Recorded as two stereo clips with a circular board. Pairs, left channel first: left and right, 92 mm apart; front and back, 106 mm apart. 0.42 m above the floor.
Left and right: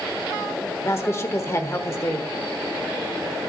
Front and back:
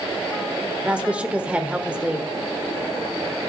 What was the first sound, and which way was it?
A woman speaking, 110° left.